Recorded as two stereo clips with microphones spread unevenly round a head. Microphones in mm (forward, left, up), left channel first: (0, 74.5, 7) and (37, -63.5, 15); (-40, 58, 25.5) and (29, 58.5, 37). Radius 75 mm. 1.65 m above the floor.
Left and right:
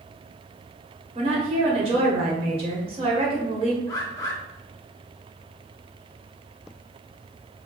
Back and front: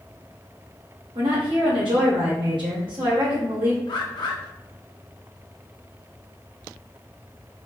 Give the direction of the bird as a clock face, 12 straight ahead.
6 o'clock.